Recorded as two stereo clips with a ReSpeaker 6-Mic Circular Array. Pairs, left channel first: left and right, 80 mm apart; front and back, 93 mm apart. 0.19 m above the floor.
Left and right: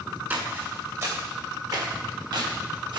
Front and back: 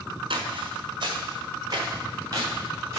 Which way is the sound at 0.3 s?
155° right.